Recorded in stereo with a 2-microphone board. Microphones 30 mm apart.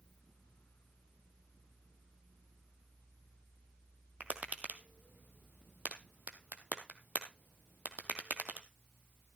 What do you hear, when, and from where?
4.2 s tapping: 50° right (ahead or behind), 1.3 m